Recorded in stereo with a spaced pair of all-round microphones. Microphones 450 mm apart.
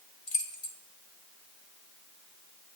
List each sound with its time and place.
0.3 s keys jangling: 75° left (ahead or behind), 1.7 m